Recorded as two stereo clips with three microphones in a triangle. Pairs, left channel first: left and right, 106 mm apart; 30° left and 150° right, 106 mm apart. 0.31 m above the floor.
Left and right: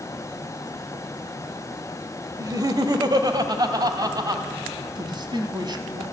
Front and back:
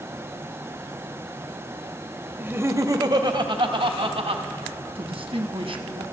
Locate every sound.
2.4 s laughter: 95° right, 1.2 m; by 4.4 s 140° right, 2 m
5.0 s a man speaking: 130° right, 2.0 m